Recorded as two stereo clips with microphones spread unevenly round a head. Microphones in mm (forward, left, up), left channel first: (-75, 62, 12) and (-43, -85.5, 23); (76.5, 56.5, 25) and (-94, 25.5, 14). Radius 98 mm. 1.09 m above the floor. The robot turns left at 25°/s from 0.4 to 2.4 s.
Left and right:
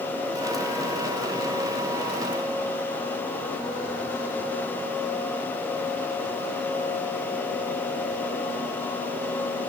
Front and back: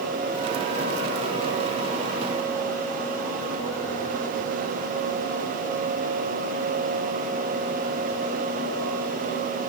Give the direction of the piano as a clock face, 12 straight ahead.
I don't hear a piano.